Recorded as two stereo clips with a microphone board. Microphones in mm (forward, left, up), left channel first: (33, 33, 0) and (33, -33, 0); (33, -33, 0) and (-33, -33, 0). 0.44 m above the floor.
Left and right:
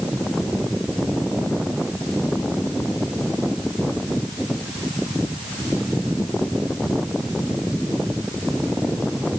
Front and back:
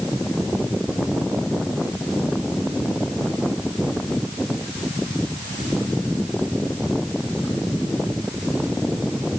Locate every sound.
Only background noise.